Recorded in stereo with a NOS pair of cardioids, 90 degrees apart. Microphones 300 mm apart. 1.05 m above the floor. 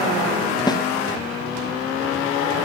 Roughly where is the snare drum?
Ahead.